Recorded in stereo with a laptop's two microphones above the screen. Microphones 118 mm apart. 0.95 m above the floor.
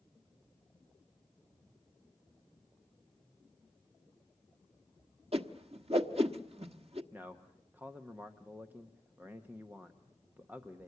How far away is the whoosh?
About 1.2 m.